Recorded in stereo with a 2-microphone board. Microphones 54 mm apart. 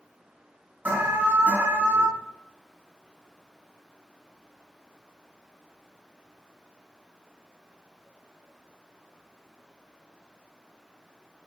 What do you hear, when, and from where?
0.8 s an alarm: 30° right (ahead or behind), 3.5 m